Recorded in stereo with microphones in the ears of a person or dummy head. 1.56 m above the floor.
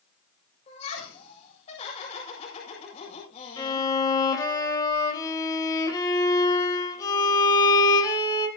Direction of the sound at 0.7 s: 40° left (ahead or behind).